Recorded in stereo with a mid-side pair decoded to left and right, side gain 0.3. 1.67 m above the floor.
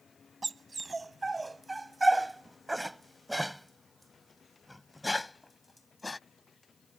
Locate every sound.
0.4 s a dog barking: 40° right; by 6.2 s 30° left